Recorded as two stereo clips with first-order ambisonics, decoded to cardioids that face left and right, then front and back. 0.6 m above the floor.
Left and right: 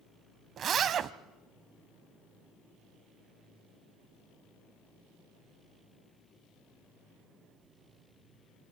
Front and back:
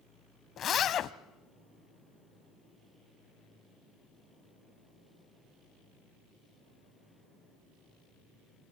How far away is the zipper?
About 0.5 m.